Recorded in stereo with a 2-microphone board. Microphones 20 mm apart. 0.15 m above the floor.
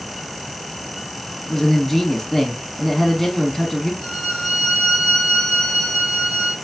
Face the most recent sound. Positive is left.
turn(degrees=50)  # may be behind; listen again after turning